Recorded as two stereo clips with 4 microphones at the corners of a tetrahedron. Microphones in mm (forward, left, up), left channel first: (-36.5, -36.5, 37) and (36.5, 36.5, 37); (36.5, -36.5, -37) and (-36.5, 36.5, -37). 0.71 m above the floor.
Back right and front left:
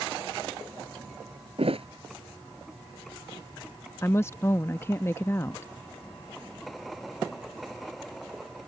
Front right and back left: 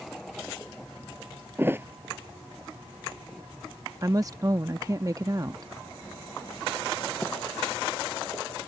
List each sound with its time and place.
1.6 s a thud: 65° left
4.0 s a woman speaking: 170° left